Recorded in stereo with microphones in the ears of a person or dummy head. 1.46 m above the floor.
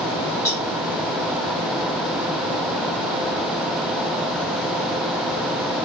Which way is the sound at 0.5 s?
20° left (ahead or behind).